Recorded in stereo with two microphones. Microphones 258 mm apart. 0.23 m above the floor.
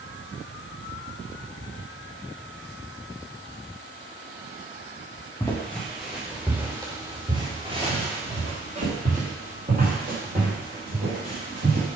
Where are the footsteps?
10° left (ahead or behind), 2 m; by 12.0 s 40° right (ahead or behind), 5.5 m.